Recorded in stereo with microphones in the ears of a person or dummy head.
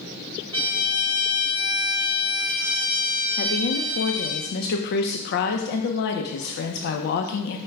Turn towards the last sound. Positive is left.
turn(degrees=60)  # may be behind; listen again after turning